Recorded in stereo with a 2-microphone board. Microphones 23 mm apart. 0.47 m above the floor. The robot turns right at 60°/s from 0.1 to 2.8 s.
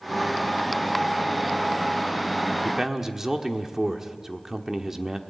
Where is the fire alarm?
I don't hear a fire alarm.